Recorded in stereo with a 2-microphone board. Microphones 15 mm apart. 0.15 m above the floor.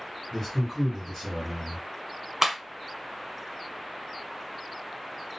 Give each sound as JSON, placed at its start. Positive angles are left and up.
{"t": 0.3, "sound": "a man speaking", "side_deg": 35, "distance_m": 2.0}
{"t": 2.4, "sound": "a clap", "side_deg": -25, "distance_m": 1.2}